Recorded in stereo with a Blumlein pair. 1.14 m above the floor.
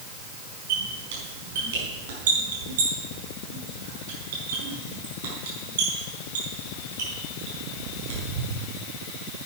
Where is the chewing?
No chewing in this recording.